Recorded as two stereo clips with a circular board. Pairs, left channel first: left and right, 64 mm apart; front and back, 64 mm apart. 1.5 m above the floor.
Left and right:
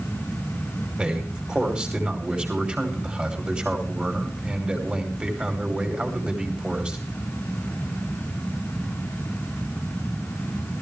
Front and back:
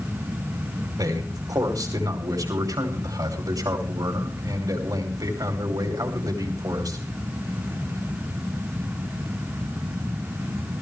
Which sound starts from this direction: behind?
A man speaking, at 1.0 s.